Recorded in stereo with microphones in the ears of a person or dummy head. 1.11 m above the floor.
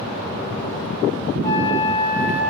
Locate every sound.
1.4 s a flute: 15° left (ahead or behind), 7.5 m